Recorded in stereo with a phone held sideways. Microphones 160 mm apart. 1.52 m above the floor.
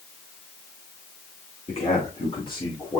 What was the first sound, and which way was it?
A man speaking, 40° left (ahead or behind).